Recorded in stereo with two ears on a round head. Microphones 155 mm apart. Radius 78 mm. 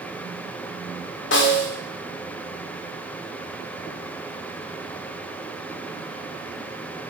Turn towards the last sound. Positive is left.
turn(degrees=75)  # may be behind; listen again after turning